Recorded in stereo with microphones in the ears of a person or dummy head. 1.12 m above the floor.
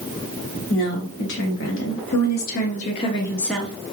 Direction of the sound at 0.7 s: 75° left (ahead or behind).